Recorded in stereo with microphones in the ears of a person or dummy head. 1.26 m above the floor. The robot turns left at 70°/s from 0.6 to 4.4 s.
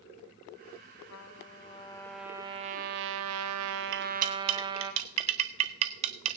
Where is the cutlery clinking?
50° right (ahead or behind), 0.5 m; by 6.4 s 35° right (ahead or behind), 0.5 m.